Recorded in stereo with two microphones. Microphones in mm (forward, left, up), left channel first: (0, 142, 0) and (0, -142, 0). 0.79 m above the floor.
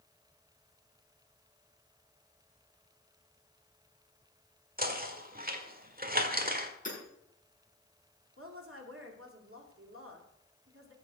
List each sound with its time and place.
4.8 s knocking: 30° right (ahead or behind), 1.7 m
6.8 s hammering: 25° left (ahead or behind), 8 m
8.4 s a woman speaking: 50° right (ahead or behind), 2.5 m